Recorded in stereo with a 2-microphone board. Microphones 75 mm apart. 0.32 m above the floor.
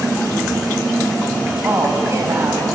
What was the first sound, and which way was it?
A woman speaking, 40° right (ahead or behind).